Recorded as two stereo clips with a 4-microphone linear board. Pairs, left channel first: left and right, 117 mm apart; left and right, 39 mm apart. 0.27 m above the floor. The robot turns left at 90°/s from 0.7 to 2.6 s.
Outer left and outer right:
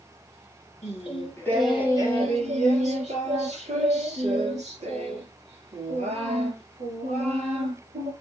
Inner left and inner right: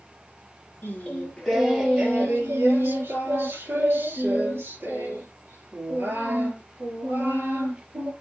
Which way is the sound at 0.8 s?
75° left.